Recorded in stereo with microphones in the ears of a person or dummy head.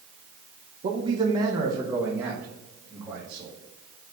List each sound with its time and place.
0.8 s a man speaking: 30° right (ahead or behind), 0.6 m; by 3.5 s 5° right (ahead or behind), 2 m